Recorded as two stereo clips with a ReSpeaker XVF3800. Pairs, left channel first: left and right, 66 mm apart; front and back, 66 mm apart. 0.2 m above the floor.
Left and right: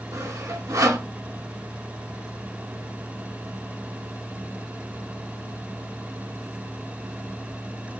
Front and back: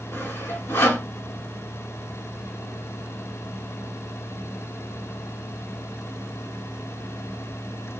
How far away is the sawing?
About 0.7 m.